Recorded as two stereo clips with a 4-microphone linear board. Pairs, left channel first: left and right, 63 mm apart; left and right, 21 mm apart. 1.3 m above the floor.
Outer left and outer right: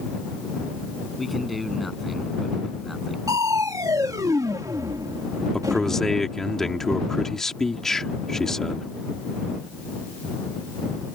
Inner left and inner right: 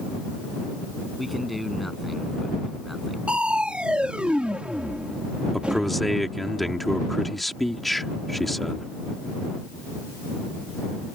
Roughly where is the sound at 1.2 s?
Centre.